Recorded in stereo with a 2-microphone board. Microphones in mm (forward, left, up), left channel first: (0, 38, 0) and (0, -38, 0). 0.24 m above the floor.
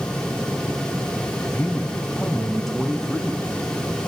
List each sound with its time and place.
1.5 s a man speaking: 15° left (ahead or behind), 1.0 m; by 3.5 s centre (ahead or behind), 2.5 m